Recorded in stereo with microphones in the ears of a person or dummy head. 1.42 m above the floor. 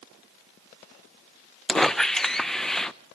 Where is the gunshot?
No gunshot in this recording.